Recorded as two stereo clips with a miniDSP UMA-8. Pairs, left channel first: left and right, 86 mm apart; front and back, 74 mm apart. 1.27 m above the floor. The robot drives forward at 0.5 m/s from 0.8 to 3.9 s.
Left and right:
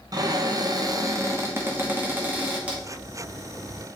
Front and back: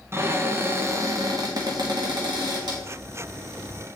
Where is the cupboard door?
125° right, 0.5 m; by 2.8 s 165° right, 1.4 m.